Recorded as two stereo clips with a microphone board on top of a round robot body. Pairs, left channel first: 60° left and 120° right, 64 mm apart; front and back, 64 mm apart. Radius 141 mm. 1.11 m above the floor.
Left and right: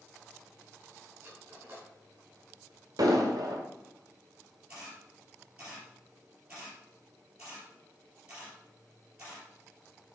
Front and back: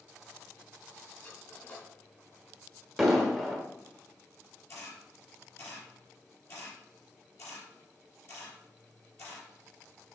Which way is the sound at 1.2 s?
60° right.